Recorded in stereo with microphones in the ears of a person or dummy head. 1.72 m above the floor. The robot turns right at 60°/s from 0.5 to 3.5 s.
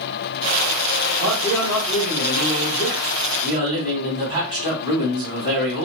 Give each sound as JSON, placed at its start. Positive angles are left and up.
{"t": 1.2, "sound": "a man speaking", "azimuth_deg": 65, "distance_m": 1.6}